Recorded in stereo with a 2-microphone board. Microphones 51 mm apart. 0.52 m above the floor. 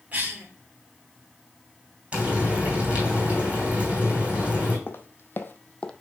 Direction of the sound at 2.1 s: 25° right (ahead or behind).